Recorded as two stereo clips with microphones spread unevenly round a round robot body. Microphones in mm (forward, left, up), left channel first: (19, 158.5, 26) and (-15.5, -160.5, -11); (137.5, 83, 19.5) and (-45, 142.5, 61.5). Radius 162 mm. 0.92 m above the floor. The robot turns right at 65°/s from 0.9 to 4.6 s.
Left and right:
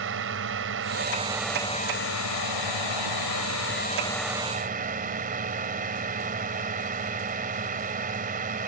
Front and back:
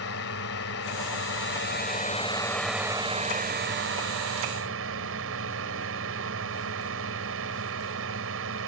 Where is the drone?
45° right; by 8.7 s 165° right.